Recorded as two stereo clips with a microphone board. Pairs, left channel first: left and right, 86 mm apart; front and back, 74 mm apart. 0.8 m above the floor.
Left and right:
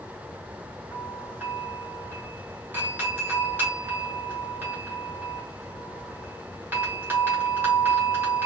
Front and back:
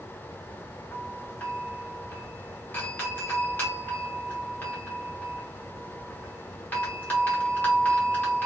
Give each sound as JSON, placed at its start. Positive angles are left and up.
{"t": 0.9, "sound": "a doorbell", "azimuth_deg": -40, "distance_m": 1.9}